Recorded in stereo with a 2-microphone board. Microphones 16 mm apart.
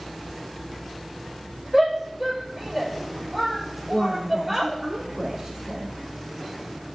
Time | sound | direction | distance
1.7 | a shout | 20° right (ahead or behind) | 6 m
3.9 | a woman speaking | 25° right (ahead or behind) | 3.5 m